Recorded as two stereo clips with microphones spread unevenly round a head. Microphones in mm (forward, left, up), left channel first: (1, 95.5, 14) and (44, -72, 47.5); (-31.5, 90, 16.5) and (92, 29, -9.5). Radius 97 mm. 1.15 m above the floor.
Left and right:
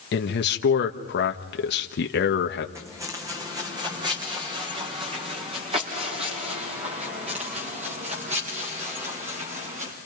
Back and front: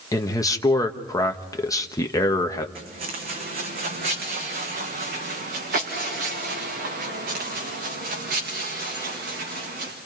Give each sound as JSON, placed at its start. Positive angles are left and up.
{"t": 0.1, "sound": "a man speaking", "azimuth_deg": 85, "distance_m": 1.3}
{"t": 2.8, "sound": "footsteps", "azimuth_deg": -5, "distance_m": 4.0}